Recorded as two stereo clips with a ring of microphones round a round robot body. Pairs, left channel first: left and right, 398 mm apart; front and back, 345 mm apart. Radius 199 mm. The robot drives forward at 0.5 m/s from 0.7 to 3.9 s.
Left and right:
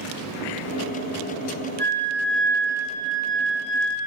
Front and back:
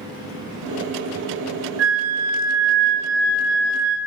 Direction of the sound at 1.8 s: 170° left.